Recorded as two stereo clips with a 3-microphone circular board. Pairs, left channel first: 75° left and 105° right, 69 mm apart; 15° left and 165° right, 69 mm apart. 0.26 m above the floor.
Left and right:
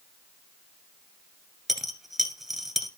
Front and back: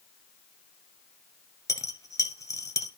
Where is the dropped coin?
15° right, 1.6 m.